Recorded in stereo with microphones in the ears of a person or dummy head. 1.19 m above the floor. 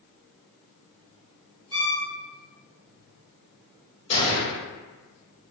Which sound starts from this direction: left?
A gunshot, at 4.1 s.